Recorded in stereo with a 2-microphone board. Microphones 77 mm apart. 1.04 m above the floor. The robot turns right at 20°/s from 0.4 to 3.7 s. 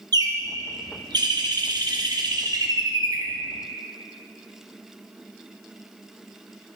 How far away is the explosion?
No explosion in this recording.